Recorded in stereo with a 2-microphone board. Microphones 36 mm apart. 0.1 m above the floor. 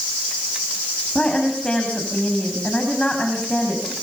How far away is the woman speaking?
About 7.5 m.